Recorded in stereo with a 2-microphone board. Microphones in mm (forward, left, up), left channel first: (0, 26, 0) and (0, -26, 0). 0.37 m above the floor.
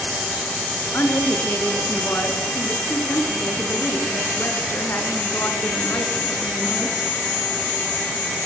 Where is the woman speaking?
50° left (ahead or behind), 4 m.